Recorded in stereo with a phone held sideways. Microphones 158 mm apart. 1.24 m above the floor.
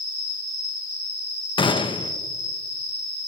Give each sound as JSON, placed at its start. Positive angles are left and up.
{"t": 0.0, "sound": "an insect", "side_deg": -70, "distance_m": 3.5}
{"t": 1.6, "sound": "a gunshot", "side_deg": 30, "distance_m": 0.8}